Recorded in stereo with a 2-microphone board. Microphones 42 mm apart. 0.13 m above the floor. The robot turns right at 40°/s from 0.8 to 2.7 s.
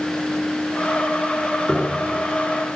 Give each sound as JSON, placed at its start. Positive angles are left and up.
{"t": 1.7, "sound": "a piano", "side_deg": 10, "distance_m": 5.5}